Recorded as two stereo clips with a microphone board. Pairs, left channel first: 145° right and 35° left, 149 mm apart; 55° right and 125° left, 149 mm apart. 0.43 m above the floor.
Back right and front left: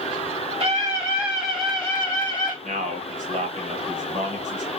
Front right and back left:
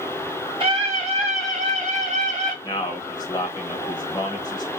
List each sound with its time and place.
0.6 s a scream: 80° left, 1.2 m; by 2.5 s 155° left, 1.4 m
2.6 s a man speaking: 5° left, 1.8 m